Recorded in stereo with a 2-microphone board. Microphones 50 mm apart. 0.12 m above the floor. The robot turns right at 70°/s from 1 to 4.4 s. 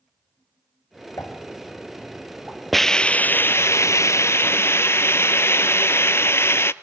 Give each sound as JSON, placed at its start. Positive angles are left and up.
{"t": 1.2, "sound": "a pop", "side_deg": 85, "distance_m": 5.5}
{"t": 2.7, "sound": "a hiss", "azimuth_deg": 5, "distance_m": 0.5}